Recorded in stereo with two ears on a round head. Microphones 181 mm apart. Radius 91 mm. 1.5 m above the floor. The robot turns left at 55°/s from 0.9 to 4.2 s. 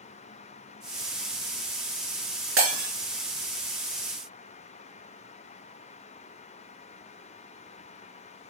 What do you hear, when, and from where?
2.6 s breaking glass: 65° right (ahead or behind), 4.5 m; by 2.9 s 75° right (ahead or behind), 4.5 m